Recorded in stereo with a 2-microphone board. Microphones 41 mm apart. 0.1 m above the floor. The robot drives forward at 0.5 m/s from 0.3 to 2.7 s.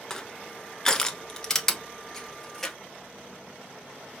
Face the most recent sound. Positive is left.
turn(degrees=10)  # may be behind; listen again after turning